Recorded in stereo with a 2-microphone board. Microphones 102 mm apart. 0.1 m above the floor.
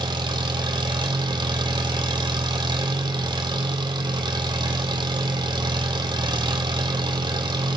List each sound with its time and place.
0.0 s an engine running: 45° right (ahead or behind), 1.5 m